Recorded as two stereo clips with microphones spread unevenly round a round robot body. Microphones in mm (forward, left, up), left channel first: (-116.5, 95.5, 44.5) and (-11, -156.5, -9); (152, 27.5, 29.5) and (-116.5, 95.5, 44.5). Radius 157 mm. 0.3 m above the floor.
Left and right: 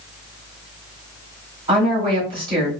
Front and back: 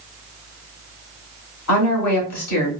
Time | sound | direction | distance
1.7 | a woman speaking | straight ahead | 2 m